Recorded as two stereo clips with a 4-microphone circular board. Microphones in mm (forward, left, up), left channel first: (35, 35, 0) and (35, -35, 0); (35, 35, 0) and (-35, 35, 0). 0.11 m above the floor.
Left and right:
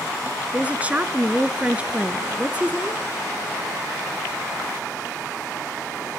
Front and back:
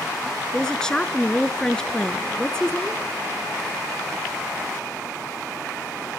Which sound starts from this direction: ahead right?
A woman speaking, at 0.5 s.